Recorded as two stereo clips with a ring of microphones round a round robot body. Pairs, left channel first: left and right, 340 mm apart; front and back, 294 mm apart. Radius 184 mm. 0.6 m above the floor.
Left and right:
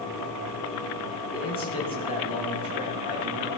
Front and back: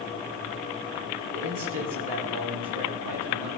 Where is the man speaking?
165° left, 5 m.